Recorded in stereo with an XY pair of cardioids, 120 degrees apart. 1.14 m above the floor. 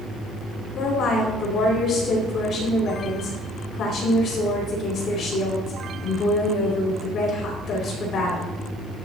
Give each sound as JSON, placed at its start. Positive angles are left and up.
{"t": 0.8, "sound": "a woman speaking", "azimuth_deg": 55, "distance_m": 3.0}